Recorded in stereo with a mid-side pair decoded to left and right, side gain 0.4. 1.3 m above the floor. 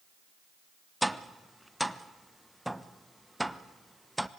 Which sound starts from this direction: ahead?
Tapping, at 1.0 s.